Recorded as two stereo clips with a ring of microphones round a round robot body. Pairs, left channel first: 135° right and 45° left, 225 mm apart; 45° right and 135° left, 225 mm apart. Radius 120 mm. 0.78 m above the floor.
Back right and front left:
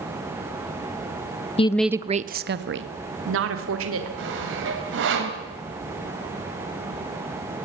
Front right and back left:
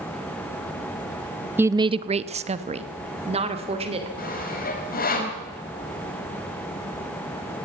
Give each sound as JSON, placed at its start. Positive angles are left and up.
{"t": 1.6, "sound": "a woman speaking", "azimuth_deg": -155, "distance_m": 0.7}
{"t": 4.2, "sound": "sawing", "azimuth_deg": 5, "distance_m": 4.0}